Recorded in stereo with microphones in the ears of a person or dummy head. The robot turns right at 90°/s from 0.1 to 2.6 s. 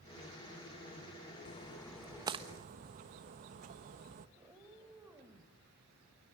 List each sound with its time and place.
1.4 s a splash: 35° left (ahead or behind), 1.3 m; by 4.3 s 40° right (ahead or behind), 1.3 m
4.4 s a cat meowing: 15° right (ahead or behind), 3.5 m